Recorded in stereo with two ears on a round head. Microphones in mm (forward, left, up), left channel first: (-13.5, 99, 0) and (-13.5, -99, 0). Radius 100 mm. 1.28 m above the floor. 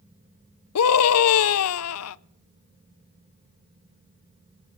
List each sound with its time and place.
0.8 s a scream: 70° left (ahead or behind), 0.5 m